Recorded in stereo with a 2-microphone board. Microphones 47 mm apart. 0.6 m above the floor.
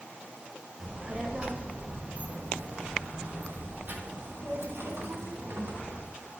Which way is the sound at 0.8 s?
15° right (ahead or behind).